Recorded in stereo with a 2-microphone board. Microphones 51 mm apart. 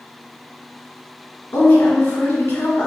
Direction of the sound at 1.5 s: 55° left (ahead or behind).